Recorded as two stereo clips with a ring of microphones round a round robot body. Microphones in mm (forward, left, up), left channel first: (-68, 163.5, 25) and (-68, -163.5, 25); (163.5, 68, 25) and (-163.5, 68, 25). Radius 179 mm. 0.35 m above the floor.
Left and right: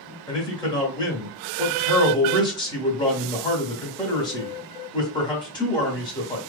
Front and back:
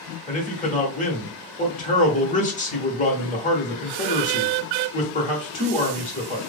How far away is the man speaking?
About 1.1 m.